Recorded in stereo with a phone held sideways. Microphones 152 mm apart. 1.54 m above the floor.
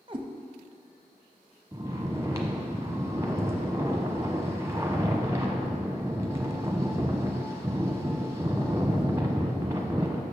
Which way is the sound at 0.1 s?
35° right (ahead or behind).